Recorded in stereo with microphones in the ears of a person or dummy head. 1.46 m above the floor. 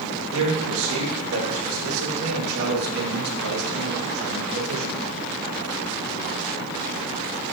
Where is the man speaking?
80° right, 1.9 m.